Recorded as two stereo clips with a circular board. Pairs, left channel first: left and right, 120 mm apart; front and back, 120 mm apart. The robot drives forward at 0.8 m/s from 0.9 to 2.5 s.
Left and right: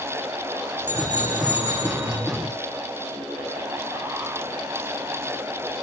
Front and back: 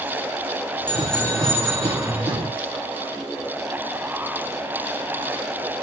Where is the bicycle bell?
80° left, 6.5 m; by 2.1 s 90° left, 6 m.